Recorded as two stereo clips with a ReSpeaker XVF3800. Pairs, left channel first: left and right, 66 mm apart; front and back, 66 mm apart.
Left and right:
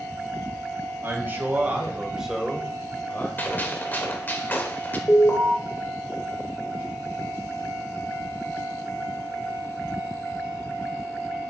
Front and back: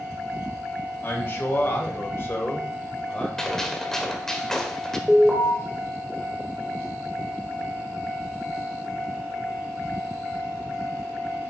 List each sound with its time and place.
1.0 s a man speaking: 45° right, 2.5 m; by 3.3 s 60° left, 1.7 m
3.4 s a gunshot: 70° left, 1.3 m
5.1 s an alarm: 95° left, 1.9 m